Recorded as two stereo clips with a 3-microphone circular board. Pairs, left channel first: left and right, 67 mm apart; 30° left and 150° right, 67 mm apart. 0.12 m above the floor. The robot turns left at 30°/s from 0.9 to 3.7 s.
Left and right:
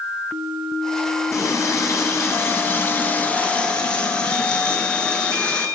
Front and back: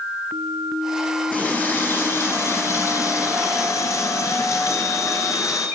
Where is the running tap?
90° left, 1.4 m; by 5.7 s 20° left, 1.4 m.